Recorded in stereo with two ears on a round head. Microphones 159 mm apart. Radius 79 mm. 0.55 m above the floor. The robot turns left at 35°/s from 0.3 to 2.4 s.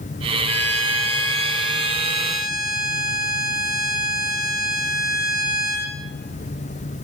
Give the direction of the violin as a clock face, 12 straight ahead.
8 o'clock.